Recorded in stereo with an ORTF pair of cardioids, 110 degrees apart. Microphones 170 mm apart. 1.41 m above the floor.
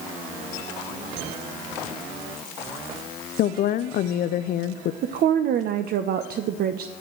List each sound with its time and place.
3.4 s a woman speaking: 60° left, 0.5 m
5.0 s a woman speaking: 60° right, 0.9 m